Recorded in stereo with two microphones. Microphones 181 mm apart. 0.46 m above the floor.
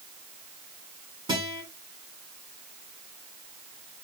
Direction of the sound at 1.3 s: 25° right (ahead or behind).